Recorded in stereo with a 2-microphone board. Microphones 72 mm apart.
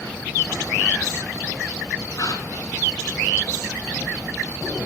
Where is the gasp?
60° left (ahead or behind), 0.9 m.